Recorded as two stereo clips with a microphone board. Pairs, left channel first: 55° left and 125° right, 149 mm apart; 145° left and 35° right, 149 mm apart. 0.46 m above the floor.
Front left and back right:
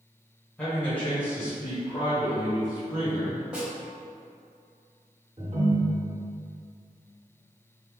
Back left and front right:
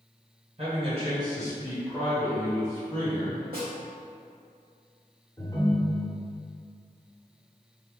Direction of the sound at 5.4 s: 155° right.